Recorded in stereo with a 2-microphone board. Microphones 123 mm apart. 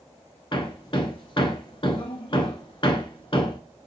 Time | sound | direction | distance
0.5 | hammering | 45° left (ahead or behind) | 0.7 m